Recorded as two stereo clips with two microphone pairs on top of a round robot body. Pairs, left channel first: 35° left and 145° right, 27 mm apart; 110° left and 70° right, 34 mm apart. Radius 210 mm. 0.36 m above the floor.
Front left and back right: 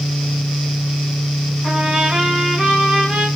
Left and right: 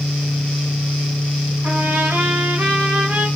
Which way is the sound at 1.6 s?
80° right.